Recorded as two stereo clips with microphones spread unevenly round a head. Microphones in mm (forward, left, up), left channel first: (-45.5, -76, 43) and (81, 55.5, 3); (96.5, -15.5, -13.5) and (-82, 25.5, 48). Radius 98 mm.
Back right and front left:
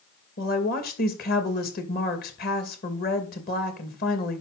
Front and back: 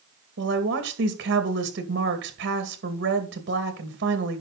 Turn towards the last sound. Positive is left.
turn(degrees=-175)